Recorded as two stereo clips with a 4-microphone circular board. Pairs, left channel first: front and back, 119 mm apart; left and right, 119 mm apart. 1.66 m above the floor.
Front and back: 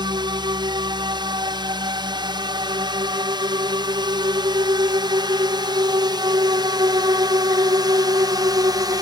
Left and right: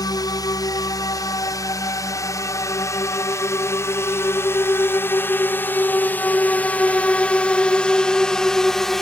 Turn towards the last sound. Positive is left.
turn(degrees=175)